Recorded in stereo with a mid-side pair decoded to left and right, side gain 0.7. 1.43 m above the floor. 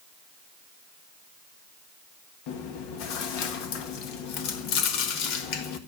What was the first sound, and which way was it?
Chewing, 65° left.